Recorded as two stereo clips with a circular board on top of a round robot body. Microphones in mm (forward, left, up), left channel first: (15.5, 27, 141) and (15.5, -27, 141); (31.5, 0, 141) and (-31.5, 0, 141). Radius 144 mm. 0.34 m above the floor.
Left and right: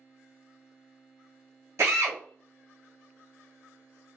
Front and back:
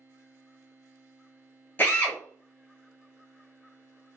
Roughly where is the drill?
Ahead right.